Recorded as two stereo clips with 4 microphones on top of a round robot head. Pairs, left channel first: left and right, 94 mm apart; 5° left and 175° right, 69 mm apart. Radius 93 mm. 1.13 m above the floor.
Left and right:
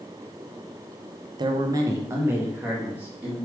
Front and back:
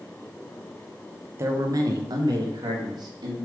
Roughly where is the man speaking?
Behind right.